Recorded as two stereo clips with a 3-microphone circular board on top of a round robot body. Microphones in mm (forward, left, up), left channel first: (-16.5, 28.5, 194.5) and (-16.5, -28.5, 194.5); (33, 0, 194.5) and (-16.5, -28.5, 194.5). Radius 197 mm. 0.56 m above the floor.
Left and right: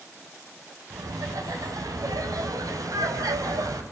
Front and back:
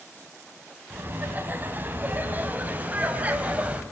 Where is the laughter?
95° right, 4.5 m; by 3.8 s 85° right, 3.5 m.